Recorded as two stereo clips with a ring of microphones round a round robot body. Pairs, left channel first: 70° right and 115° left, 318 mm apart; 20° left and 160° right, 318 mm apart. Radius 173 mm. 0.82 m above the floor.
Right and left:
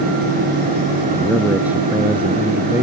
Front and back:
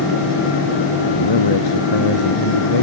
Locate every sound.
1.1 s a man speaking: 25° left